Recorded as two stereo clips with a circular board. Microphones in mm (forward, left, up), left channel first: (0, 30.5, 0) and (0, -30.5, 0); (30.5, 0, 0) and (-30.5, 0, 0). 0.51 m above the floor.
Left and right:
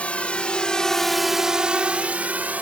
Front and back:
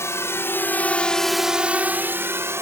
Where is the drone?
25° left; by 2.6 s 150° right.